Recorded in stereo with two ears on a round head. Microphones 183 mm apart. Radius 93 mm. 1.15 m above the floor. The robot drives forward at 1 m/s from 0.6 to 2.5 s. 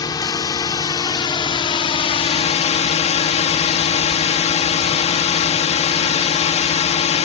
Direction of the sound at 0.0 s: 20° left (ahead or behind).